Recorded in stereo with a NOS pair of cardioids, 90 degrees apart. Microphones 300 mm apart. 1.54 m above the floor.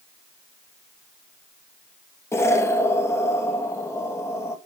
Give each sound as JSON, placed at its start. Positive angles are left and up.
{"t": 2.3, "sound": "an explosion", "azimuth_deg": 10, "distance_m": 2.0}